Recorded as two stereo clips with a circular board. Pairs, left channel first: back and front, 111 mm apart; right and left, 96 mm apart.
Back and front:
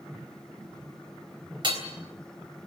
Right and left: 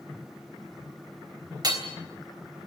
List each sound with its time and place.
1.6 s hammering: 45° left, 3 m